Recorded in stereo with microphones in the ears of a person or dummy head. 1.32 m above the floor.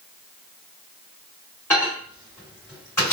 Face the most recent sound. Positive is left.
turn(degrees=15)  # may be behind; listen again after turning